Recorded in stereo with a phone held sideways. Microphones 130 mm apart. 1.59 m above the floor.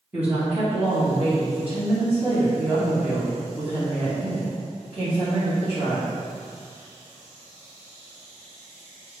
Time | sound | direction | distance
0.1 | a woman speaking | 10° right (ahead or behind) | 2.5 m